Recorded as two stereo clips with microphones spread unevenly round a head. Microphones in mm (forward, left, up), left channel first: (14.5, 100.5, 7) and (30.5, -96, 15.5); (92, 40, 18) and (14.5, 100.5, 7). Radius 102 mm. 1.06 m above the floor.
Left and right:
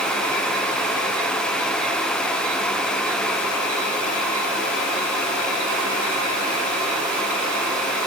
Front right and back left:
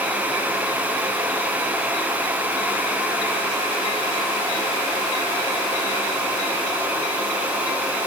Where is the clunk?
I don't hear a clunk.